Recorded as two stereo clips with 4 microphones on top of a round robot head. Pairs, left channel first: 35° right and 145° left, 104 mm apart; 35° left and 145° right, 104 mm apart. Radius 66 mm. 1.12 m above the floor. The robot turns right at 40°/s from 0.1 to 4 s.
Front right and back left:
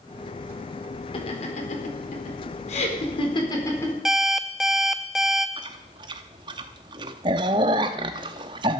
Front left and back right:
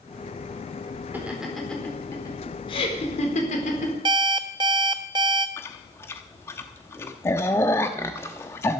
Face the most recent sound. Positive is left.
turn(degrees=100)